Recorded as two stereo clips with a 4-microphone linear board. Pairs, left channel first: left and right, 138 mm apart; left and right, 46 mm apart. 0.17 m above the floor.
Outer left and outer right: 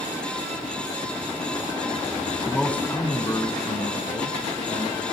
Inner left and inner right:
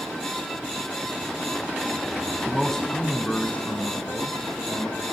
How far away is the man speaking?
About 1.1 m.